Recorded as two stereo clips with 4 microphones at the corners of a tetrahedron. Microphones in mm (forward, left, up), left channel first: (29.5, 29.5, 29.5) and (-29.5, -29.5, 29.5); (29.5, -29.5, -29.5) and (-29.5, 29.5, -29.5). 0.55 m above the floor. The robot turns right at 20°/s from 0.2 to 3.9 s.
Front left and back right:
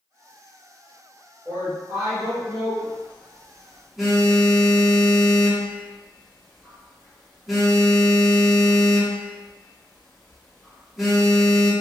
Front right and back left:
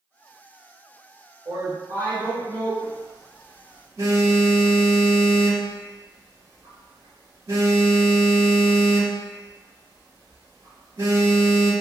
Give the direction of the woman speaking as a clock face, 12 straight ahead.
7 o'clock.